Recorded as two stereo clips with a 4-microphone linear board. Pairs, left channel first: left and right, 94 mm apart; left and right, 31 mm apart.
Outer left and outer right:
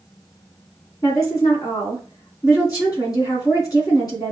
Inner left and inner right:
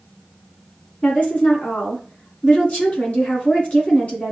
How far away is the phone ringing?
No phone ringing in this recording.